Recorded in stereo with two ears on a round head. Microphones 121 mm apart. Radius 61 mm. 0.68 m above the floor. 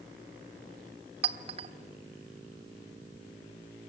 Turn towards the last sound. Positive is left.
turn(degrees=-45)  # may be behind; listen again after turning